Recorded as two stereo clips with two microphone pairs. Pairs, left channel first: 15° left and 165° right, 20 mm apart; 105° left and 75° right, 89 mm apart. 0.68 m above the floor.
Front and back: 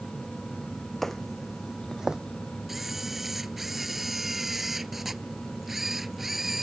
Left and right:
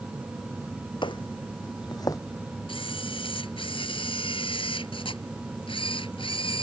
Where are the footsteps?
90° left; by 2.2 s 150° left.